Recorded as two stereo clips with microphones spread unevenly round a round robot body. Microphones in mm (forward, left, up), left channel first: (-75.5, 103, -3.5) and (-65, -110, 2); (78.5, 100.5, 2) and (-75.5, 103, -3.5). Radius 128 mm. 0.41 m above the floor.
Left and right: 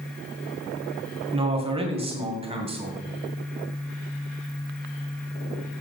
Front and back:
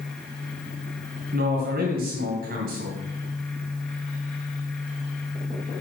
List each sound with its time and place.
1.3 s a man speaking: 150° right, 2 m